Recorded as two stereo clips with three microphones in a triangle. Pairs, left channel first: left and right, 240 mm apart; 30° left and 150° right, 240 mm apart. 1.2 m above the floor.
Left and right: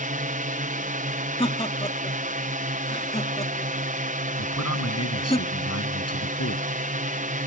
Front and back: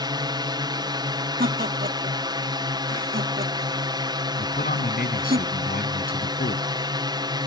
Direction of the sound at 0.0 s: 90° right.